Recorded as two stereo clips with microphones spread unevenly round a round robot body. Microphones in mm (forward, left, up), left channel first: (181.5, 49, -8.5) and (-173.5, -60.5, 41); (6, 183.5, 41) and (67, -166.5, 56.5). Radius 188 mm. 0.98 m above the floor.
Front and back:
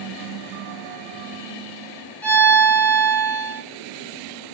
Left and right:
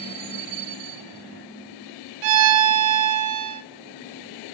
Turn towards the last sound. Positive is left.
turn(degrees=-70)